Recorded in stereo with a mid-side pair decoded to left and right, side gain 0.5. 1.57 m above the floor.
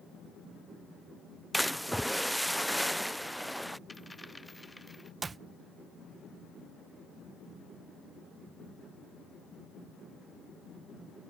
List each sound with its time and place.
1.5 s a splash: 5° right
3.9 s a dropped coin: 10° left
5.2 s a clap: 35° right